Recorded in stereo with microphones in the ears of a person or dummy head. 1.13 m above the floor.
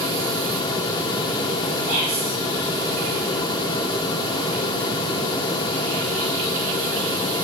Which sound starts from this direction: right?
Whispering, at 1.9 s.